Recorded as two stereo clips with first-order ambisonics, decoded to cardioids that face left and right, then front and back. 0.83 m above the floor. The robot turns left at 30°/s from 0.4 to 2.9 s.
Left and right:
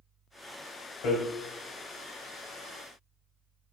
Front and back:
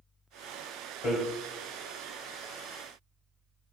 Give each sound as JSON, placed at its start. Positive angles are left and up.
{"t": 1.0, "sound": "hammering", "azimuth_deg": 70, "distance_m": 2.0}